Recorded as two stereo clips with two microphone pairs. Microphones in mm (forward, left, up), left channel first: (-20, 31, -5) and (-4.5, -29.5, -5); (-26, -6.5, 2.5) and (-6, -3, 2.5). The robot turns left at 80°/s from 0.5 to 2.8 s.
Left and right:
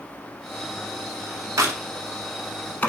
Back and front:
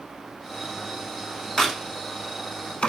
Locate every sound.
1.6 s a crack: 95° right, 0.5 m; by 2.9 s 170° left, 0.5 m